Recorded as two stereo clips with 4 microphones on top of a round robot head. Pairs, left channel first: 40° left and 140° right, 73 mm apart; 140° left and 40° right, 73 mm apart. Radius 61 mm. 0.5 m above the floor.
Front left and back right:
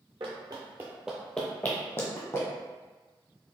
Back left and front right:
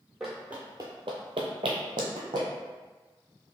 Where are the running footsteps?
130° right, 0.6 m; by 2.5 s 10° right, 1.1 m.